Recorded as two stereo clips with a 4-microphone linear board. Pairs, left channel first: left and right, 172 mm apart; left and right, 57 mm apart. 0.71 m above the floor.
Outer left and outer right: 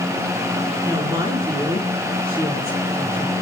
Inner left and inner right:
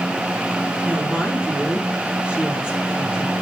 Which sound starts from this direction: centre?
A woman speaking, at 0.8 s.